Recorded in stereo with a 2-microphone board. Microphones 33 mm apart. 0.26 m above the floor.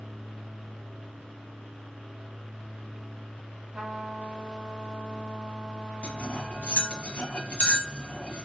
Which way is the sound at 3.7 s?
25° right (ahead or behind).